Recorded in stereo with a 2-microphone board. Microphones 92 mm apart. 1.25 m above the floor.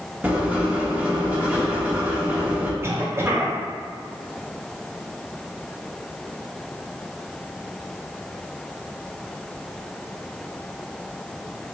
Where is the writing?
15° right (ahead or behind), 0.8 m.